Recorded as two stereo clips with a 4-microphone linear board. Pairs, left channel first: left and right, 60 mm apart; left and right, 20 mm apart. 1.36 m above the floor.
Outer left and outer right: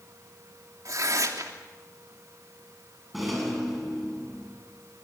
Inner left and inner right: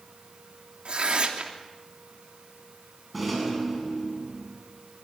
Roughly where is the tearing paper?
Right.